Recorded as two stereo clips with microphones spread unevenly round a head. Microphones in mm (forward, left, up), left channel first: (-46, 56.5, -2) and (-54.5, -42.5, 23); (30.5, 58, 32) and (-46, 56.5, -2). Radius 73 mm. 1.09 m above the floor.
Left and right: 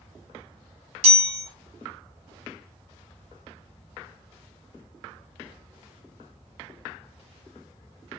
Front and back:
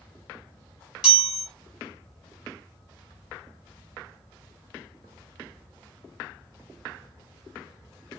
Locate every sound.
1.0 s a chime: 55° right, 2 m